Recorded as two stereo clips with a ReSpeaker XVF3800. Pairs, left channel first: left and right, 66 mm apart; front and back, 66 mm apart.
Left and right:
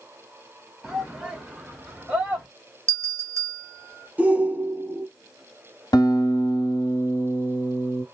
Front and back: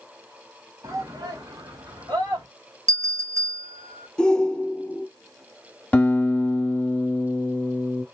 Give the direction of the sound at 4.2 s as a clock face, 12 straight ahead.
2 o'clock.